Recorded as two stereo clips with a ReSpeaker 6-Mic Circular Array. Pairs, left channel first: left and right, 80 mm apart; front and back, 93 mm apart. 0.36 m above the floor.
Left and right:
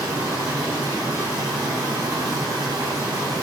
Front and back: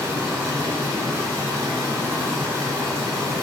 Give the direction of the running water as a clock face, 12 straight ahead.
4 o'clock.